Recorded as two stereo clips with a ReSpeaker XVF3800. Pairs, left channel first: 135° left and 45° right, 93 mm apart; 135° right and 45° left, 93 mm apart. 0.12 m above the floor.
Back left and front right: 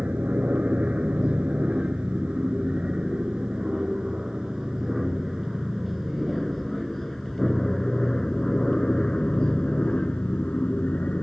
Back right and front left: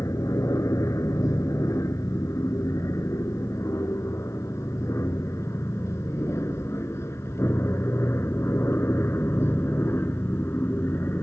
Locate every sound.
0.0 s an aircraft: 110° right; by 11.2 s 165° right